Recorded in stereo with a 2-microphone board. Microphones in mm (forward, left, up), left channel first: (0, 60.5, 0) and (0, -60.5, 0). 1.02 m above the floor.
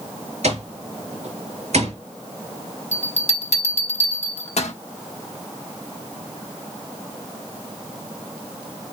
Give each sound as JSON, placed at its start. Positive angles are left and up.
{"t": 0.4, "sound": "an alarm clock", "side_deg": -65, "distance_m": 6.5}
{"t": 2.9, "sound": "a bell", "side_deg": 70, "distance_m": 1.4}